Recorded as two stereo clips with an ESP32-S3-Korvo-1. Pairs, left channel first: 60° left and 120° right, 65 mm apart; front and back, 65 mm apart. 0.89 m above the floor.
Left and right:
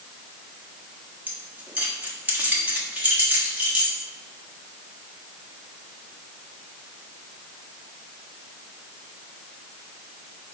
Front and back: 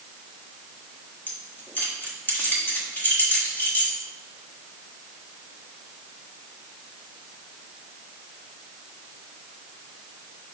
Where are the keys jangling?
60° right, 1.2 m.